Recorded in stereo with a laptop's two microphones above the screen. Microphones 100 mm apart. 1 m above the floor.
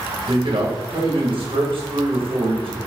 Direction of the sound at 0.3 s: 60° right (ahead or behind).